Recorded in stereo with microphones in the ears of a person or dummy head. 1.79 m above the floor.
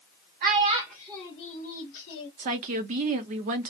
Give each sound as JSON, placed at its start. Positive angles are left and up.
{"t": 0.4, "sound": "a child speaking", "side_deg": -30, "distance_m": 0.6}
{"t": 2.4, "sound": "a woman speaking", "side_deg": -40, "distance_m": 0.5}